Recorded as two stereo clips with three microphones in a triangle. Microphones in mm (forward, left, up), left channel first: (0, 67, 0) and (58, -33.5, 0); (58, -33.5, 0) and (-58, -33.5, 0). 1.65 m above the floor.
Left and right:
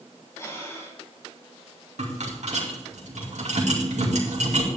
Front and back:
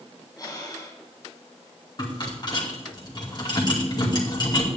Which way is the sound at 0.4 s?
55° left.